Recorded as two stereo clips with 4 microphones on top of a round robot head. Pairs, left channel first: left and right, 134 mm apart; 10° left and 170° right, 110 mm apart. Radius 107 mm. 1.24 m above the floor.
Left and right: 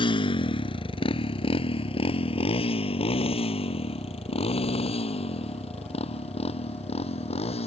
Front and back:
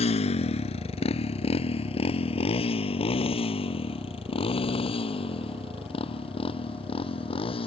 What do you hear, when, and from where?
0.0 s a motorcycle: 35° left; by 7.7 s 45° left